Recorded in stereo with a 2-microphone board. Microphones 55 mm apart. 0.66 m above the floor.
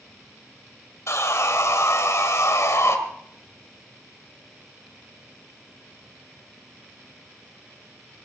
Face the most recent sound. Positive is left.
turn(degrees=65)  # may be behind; listen again after turning